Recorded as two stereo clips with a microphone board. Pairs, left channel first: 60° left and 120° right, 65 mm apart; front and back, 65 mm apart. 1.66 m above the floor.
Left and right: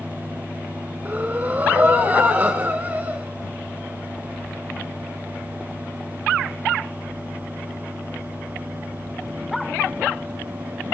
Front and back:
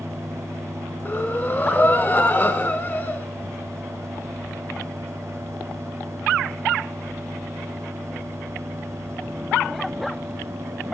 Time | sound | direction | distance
1.1 | breathing | 60° right | 1.7 m